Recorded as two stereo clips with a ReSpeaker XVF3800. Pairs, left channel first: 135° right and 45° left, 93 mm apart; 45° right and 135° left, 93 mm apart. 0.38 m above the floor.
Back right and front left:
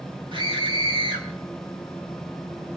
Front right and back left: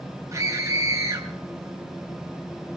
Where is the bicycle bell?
I don't hear a bicycle bell.